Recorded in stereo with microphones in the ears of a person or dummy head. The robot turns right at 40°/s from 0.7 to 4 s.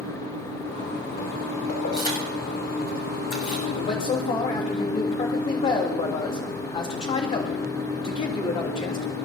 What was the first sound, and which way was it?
Keys jangling, 40° left (ahead or behind).